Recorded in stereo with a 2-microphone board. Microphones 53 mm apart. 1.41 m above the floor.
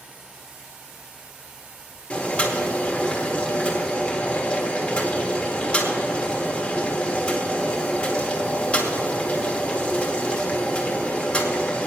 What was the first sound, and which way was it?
Boiling, 25° left (ahead or behind).